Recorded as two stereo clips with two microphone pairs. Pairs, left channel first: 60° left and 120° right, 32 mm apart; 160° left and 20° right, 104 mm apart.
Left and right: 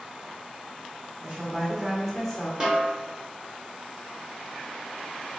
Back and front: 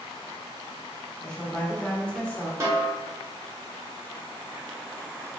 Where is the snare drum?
65° right, 1.3 m.